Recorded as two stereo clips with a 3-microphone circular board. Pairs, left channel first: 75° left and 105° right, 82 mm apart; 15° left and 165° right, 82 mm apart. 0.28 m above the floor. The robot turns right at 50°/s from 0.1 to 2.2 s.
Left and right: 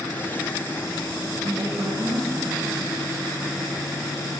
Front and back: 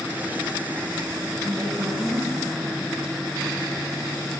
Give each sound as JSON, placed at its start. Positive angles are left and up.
{"t": 1.4, "sound": "a woman speaking", "azimuth_deg": -100, "distance_m": 5.0}